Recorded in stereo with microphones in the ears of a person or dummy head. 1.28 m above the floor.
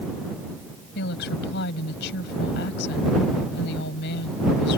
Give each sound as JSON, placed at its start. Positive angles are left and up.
{"t": 0.9, "sound": "a woman speaking", "side_deg": 70}